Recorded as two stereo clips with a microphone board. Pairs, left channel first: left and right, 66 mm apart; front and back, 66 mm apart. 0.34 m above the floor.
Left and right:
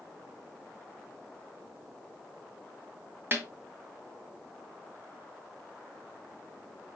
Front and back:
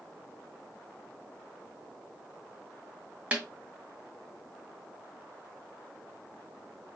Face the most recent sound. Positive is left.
turn(degrees=-120)